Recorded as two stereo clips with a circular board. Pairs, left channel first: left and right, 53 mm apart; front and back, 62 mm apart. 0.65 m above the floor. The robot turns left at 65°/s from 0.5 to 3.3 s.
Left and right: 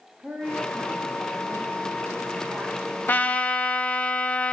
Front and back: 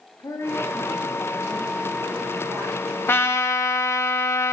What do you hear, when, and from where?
0.2 s a woman speaking: 25° right, 4.5 m; by 3.6 s 155° left, 4.5 m
3.1 s a trumpet: 45° left, 0.7 m; by 4.5 s 30° left, 0.7 m